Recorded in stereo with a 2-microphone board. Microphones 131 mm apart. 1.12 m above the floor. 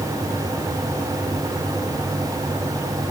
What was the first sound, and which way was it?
Only background noise.